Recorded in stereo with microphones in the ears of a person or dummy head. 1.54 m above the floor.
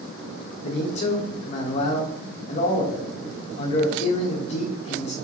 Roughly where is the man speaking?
Left.